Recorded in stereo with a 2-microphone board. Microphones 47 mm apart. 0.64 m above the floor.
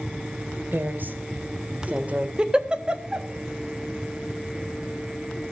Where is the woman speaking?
45° right (ahead or behind), 2.5 m; by 2.3 s 30° right (ahead or behind), 2.5 m.